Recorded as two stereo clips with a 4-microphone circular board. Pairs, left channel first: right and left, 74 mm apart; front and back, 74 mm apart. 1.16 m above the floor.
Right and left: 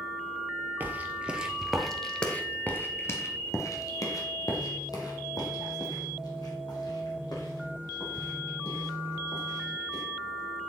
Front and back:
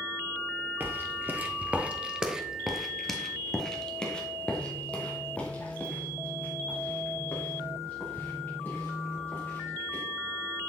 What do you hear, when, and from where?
0.8 s footsteps: 135° left, 1.4 m; by 10.0 s 65° right, 5.5 m